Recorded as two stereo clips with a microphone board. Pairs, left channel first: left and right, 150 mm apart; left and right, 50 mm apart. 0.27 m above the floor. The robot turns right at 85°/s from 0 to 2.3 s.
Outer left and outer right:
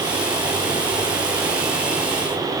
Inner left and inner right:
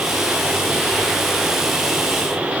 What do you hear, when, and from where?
Only background noise.